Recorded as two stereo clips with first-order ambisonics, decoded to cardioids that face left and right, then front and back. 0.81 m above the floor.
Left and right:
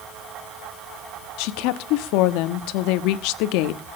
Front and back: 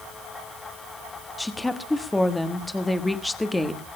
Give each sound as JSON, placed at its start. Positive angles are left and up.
{"t": 1.4, "sound": "a woman speaking", "azimuth_deg": 85, "distance_m": 1.2}